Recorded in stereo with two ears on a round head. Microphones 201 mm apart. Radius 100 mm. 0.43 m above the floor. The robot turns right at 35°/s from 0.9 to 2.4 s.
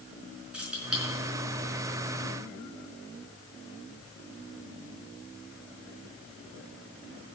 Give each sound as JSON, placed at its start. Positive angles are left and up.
{"t": 0.5, "sound": "keys jangling", "side_deg": -5, "distance_m": 4.5}